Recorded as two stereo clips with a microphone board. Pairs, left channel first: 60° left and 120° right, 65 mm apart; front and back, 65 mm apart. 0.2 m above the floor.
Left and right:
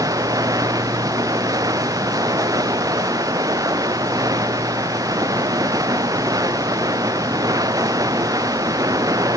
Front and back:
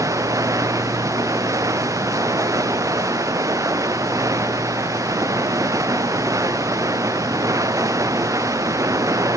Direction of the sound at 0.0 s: 145° right.